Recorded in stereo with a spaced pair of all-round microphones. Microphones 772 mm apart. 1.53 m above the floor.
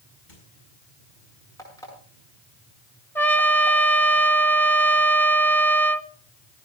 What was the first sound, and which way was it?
A squeak, 75° left (ahead or behind).